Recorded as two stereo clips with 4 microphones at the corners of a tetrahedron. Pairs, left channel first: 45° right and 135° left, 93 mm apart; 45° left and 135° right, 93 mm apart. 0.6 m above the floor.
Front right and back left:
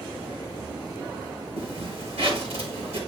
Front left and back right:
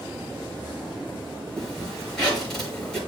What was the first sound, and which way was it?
A zipper, 130° left.